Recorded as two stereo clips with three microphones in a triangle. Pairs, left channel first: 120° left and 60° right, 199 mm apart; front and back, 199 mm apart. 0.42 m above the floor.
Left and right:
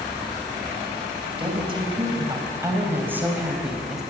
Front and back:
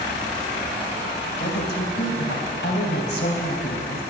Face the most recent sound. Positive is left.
turn(degrees=30)